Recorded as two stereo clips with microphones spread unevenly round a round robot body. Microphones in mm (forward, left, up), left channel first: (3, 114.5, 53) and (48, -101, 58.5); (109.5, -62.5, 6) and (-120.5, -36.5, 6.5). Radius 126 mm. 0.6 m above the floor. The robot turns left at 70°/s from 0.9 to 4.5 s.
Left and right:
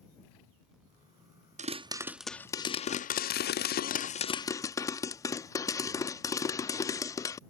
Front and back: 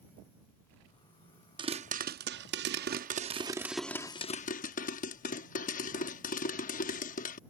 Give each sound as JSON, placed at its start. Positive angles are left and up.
{"t": 1.6, "sound": "a pop", "azimuth_deg": -125}